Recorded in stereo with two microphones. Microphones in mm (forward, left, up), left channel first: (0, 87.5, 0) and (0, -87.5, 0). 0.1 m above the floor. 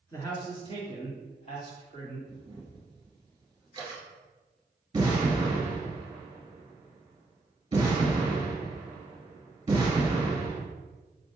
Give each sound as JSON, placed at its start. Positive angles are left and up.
{"t": 0.1, "sound": "a man speaking", "side_deg": 15, "distance_m": 1.2}
{"t": 2.3, "sound": "a camera shutter", "side_deg": -25, "distance_m": 1.6}
{"t": 4.9, "sound": "an explosion", "side_deg": -25, "distance_m": 1.5}